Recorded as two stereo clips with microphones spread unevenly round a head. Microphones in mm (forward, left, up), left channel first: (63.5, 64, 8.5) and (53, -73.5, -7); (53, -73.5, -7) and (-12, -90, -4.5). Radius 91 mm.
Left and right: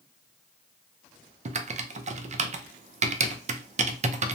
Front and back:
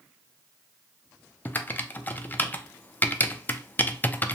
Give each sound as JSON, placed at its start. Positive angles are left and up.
{"t": 1.4, "sound": "typing on a keyboard", "azimuth_deg": -50, "distance_m": 0.5}